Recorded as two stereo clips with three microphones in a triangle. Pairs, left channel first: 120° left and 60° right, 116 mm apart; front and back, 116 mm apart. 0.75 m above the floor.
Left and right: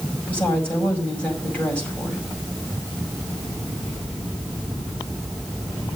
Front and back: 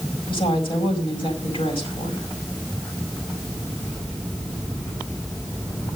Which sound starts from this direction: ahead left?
A woman speaking, at 0.3 s.